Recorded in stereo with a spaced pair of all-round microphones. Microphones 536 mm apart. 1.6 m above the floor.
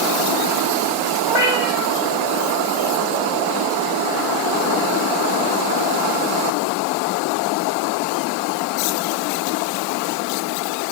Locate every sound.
1.3 s a cat meowing: 50° right (ahead or behind), 2 m